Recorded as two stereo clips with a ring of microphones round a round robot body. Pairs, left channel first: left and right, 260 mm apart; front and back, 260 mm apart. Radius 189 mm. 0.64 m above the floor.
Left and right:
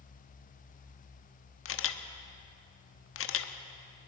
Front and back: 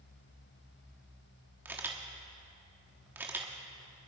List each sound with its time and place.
1.6 s a camera shutter: 100° left, 1.1 m